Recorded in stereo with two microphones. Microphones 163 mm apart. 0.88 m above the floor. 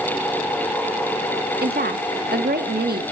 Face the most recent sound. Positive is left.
turn(degrees=-75)  # may be behind; listen again after turning